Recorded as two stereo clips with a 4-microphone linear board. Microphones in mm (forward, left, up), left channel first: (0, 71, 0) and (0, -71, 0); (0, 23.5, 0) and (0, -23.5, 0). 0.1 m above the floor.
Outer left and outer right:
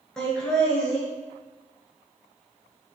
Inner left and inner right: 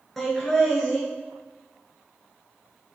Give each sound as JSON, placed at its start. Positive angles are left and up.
{"t": 0.2, "sound": "laughter", "side_deg": 5, "distance_m": 1.3}